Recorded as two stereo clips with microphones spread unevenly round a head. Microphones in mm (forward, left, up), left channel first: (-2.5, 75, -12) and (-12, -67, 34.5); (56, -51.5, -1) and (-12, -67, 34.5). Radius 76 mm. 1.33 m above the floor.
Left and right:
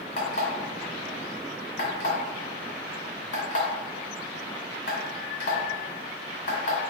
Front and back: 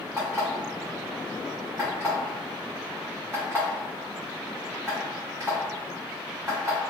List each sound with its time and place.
0.2 s an alarm clock: 125° left, 1.6 m